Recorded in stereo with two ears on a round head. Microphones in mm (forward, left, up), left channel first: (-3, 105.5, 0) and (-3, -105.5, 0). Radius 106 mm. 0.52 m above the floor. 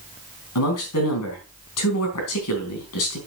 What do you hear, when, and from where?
0.6 s a man speaking: 70° left (ahead or behind), 3.5 m